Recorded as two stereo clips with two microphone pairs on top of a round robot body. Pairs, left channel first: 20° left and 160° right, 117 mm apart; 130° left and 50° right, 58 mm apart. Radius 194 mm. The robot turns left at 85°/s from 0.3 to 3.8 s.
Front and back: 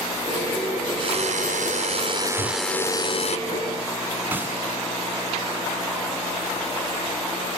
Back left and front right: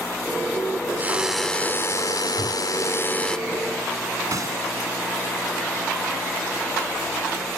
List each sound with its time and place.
1.0 s a drill: 110° right; by 3.4 s 45° left
2.4 s a whoosh: 90° left; by 2.6 s 65° left
4.3 s a gunshot: 85° right